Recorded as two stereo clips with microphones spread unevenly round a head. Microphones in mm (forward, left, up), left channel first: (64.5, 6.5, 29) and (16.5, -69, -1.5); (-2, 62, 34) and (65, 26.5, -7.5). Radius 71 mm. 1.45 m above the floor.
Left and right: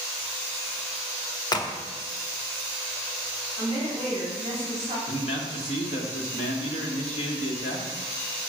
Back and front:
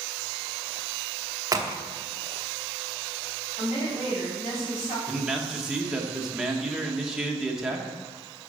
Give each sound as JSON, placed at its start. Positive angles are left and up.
{"t": 1.5, "sound": "a crack", "azimuth_deg": 5, "distance_m": 1.0}
{"t": 3.6, "sound": "a woman speaking", "azimuth_deg": 180, "distance_m": 3.5}
{"t": 5.1, "sound": "a man speaking", "azimuth_deg": 60, "distance_m": 1.4}